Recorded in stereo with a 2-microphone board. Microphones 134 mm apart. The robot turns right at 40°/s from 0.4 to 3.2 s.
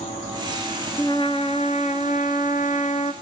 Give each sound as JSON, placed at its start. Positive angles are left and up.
{"t": 1.0, "sound": "a trumpet", "azimuth_deg": 30, "distance_m": 1.3}